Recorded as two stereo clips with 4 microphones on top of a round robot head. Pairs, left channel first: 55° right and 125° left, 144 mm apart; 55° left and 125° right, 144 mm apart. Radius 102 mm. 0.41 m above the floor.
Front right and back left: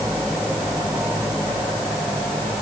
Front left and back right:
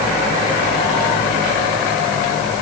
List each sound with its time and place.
Only background noise.